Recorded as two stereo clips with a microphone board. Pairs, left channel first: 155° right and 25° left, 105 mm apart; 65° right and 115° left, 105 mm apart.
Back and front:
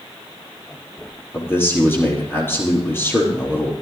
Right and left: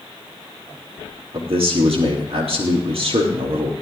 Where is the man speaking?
135° left, 4 m.